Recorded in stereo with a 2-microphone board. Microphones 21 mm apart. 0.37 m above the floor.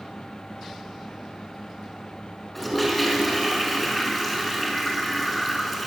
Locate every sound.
2.5 s a toilet flushing: centre (ahead or behind), 5 m